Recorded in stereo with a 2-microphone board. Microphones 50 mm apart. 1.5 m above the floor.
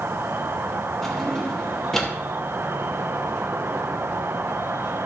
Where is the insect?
55° right (ahead or behind), 0.7 m.